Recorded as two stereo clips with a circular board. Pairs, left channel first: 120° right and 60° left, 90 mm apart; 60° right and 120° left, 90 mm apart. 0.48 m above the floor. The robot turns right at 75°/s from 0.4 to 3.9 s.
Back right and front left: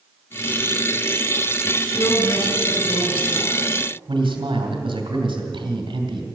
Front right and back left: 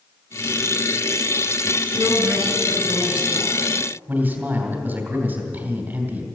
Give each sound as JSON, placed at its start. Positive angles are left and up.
{"t": 1.9, "sound": "a woman speaking", "azimuth_deg": 165, "distance_m": 4.5}
{"t": 4.1, "sound": "a man speaking", "azimuth_deg": 55, "distance_m": 3.0}